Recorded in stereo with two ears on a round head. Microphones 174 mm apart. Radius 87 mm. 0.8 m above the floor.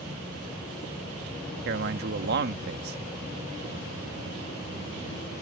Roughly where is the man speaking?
Right.